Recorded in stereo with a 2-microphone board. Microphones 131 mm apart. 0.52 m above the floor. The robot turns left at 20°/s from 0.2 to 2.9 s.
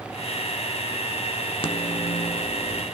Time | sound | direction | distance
1.6 | a microwave | 40° left (ahead or behind) | 0.9 m